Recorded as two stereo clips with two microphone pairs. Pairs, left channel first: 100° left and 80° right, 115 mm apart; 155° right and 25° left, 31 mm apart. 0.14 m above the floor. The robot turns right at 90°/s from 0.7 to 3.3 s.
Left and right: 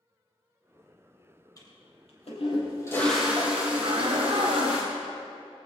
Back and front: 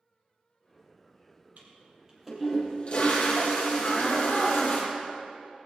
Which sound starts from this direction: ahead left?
A toilet flushing, at 1.6 s.